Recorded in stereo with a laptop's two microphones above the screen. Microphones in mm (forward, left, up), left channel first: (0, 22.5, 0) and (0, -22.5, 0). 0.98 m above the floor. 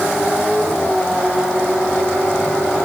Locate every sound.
Only background noise.